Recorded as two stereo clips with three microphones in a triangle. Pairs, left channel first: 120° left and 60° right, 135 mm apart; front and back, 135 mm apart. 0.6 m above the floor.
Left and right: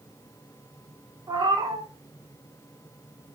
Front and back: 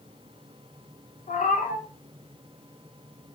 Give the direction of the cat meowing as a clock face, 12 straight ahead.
12 o'clock.